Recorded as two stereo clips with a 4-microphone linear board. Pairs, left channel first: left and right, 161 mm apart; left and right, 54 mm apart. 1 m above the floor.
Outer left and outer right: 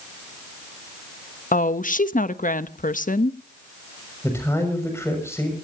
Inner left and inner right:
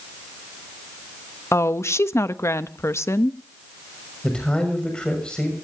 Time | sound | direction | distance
1.5 | a woman speaking | 60° left (ahead or behind) | 0.9 m
4.2 | a man speaking | 15° left (ahead or behind) | 6.5 m